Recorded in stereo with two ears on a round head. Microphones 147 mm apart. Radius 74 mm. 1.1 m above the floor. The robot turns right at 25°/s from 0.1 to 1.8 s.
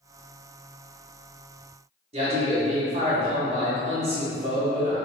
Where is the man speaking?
40° right (ahead or behind), 1.3 m.